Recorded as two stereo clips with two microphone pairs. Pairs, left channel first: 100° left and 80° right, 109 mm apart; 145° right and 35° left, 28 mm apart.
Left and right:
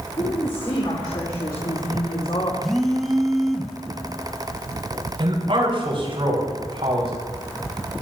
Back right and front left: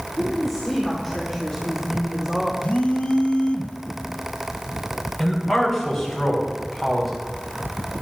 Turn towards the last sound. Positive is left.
turn(degrees=-45)